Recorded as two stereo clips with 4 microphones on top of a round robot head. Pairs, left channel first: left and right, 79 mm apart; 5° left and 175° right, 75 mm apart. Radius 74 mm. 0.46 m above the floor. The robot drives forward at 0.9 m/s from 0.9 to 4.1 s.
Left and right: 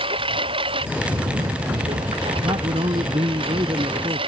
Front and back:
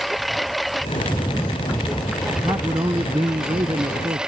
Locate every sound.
0.0 s a lawn mower: 85° right; by 4.3 s 95° right
2.4 s a man speaking: 120° right; by 4.2 s 135° right